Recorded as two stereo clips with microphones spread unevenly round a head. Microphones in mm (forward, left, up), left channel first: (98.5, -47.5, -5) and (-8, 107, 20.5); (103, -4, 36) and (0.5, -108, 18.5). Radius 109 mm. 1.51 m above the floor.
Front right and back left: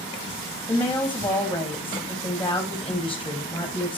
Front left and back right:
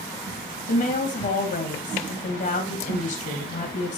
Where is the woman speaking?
25° left, 3 m.